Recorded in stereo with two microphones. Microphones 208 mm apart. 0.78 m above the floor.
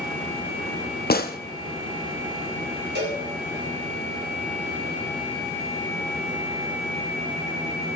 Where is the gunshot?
50° left (ahead or behind), 0.8 m.